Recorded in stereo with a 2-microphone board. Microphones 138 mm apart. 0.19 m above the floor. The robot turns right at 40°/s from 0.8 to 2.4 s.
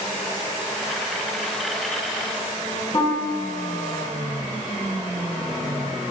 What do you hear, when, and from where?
2.9 s a piano: 30° left (ahead or behind), 0.7 m